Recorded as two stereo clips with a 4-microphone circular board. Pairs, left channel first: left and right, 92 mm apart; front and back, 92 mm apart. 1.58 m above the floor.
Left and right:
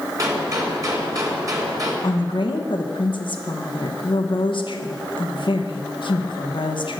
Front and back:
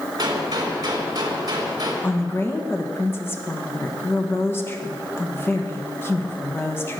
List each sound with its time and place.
0.2 s a gunshot: 140° right, 2.5 m
2.0 s a woman speaking: 65° left, 1.3 m